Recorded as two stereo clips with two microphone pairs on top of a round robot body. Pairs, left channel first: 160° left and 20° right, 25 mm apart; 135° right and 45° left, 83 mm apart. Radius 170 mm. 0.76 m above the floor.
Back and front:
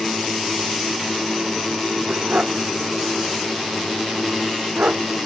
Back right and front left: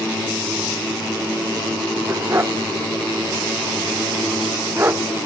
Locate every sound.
2.1 s a dog barking: 10° right; by 5.0 s 15° right